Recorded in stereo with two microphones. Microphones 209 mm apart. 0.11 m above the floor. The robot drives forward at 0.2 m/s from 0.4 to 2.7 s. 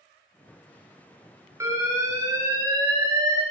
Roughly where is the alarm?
Centre.